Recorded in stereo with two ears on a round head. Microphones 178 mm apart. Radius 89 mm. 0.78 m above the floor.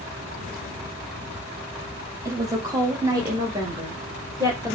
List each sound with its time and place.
2.2 s a woman speaking: 15° right (ahead or behind), 0.9 m; by 4.8 s 20° right (ahead or behind), 2 m